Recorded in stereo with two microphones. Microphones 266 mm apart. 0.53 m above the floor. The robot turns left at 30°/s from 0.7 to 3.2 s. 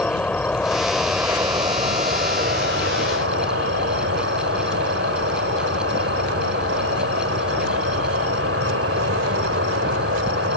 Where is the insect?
5° left; by 10.6 s 70° right.